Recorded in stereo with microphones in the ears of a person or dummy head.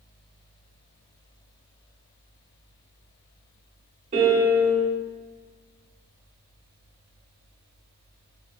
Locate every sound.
4.1 s a piano: 35° right (ahead or behind), 0.7 m